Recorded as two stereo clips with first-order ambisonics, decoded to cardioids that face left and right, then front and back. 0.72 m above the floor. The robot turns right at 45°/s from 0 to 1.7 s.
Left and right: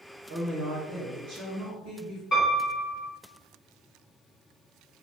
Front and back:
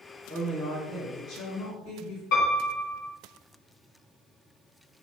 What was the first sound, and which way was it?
A woman speaking, 105° right.